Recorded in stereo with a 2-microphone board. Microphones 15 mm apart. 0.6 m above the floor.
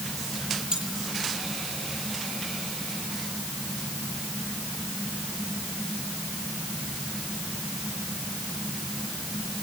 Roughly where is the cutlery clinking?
Right.